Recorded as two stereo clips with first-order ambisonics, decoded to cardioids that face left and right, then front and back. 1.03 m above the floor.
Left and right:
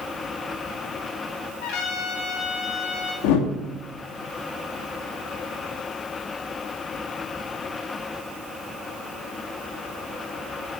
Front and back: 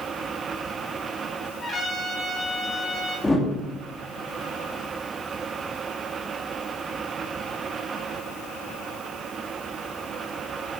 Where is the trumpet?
80° left, 3.5 m.